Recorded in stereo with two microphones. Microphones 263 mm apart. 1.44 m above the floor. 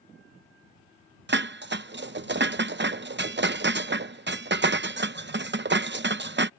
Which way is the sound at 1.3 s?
45° right (ahead or behind).